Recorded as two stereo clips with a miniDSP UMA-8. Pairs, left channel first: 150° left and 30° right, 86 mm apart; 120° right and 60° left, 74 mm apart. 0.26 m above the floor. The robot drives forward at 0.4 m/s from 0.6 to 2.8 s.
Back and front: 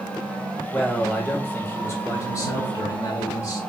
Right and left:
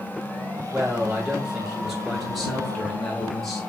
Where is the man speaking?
80° left, 0.9 m; by 3.6 s 155° left, 1.2 m.